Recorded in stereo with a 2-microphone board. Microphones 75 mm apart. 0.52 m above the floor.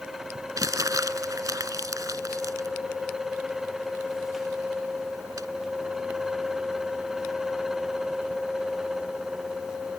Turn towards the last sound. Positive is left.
turn(degrees=-50)  # may be behind; listen again after turning